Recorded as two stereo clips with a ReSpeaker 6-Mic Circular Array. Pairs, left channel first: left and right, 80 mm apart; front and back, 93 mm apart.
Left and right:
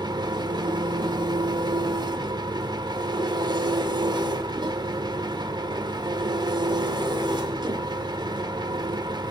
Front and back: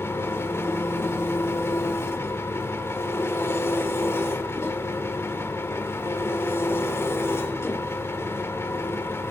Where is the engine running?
65° right, 1.5 m.